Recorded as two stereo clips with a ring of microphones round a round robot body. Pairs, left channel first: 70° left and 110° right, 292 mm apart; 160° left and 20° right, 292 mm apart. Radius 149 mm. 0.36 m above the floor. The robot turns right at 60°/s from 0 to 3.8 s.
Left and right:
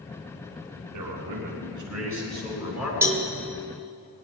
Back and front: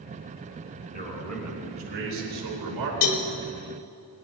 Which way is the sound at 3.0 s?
165° left.